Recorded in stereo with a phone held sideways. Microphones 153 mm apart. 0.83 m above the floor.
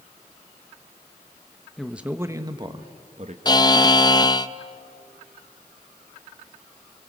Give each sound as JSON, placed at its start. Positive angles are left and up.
{"t": 1.8, "sound": "a man speaking", "side_deg": 0, "distance_m": 1.1}
{"t": 3.5, "sound": "a buzzer", "side_deg": 25, "distance_m": 0.6}